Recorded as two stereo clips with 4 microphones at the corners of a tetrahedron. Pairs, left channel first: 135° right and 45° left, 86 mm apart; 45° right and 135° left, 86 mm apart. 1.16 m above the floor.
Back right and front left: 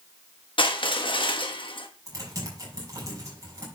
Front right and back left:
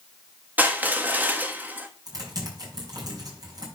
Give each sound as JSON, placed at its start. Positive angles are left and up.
{"t": 0.6, "sound": "crushing", "azimuth_deg": -155, "distance_m": 1.2}
{"t": 2.1, "sound": "typing on a keyboard", "azimuth_deg": 95, "distance_m": 6.0}